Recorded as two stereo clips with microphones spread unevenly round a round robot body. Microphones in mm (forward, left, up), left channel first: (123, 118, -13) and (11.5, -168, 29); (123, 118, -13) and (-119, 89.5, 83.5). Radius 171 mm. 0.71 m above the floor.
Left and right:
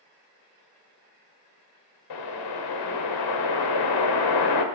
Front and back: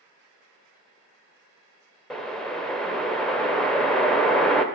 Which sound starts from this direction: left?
A whoosh, at 2.1 s.